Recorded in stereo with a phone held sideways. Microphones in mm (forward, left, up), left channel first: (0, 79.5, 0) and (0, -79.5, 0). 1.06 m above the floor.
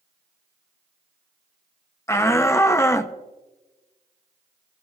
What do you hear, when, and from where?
2.1 s a shout: 15° left (ahead or behind), 0.6 m